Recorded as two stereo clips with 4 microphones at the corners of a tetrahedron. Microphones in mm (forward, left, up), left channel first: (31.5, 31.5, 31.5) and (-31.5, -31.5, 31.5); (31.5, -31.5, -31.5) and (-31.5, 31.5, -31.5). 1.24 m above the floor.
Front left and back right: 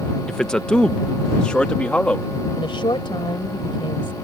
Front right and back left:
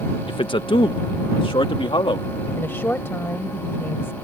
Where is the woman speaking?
20° left.